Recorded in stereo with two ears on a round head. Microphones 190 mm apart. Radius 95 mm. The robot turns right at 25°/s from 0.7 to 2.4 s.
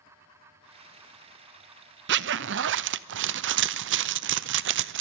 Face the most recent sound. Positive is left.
turn(degrees=-60)  # may be behind; listen again after turning